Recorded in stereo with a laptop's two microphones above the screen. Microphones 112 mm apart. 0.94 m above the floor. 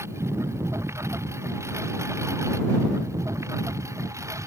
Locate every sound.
0.0 s a lawn mower: 25° right (ahead or behind); by 4.5 s 30° right (ahead or behind)